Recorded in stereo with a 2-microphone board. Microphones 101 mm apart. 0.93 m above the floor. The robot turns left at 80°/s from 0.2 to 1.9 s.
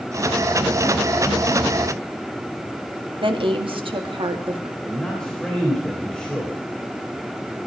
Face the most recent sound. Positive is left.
turn(degrees=10)  # may be behind; listen again after turning